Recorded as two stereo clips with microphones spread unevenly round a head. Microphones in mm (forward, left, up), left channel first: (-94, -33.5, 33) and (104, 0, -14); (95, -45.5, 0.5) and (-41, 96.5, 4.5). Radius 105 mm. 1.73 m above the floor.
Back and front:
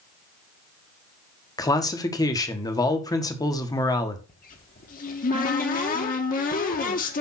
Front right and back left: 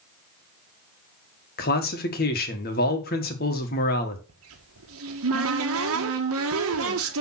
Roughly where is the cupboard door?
Behind left.